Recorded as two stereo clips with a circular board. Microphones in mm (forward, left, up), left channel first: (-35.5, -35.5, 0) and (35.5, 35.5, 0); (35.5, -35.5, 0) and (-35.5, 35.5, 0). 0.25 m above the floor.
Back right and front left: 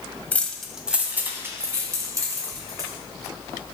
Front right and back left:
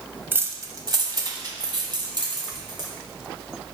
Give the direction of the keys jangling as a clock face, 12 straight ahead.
6 o'clock.